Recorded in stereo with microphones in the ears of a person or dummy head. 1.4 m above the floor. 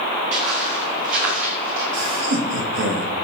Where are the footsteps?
45° right (ahead or behind), 5 m.